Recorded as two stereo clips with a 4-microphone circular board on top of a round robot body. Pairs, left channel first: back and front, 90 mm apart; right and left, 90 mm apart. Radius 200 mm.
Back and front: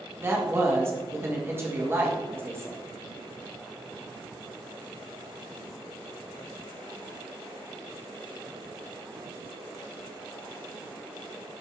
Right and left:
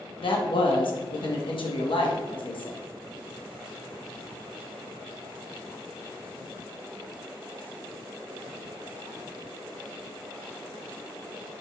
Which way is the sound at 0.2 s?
65° right.